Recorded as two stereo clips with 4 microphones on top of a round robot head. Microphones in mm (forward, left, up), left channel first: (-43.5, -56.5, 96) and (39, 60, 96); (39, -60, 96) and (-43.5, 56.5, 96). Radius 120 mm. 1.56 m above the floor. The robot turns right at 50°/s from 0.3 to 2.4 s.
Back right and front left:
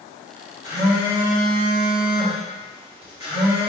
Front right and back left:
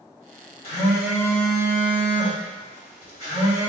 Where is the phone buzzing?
100° right, 1.6 m; by 3.7 s 15° right, 1.6 m.